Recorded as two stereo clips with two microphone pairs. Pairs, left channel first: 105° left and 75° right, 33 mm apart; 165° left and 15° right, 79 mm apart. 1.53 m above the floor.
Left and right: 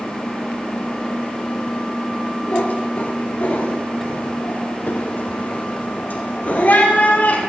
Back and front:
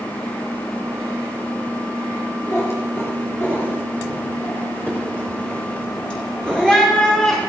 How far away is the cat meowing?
About 4.5 m.